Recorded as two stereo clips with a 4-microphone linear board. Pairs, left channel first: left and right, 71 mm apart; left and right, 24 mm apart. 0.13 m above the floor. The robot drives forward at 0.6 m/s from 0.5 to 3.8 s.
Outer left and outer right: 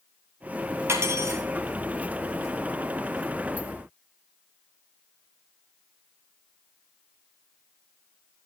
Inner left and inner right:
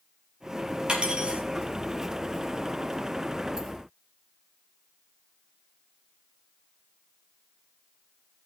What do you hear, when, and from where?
0.9 s cutlery clinking: 40° right (ahead or behind), 1.8 m; by 1.4 s 45° right (ahead or behind), 1.6 m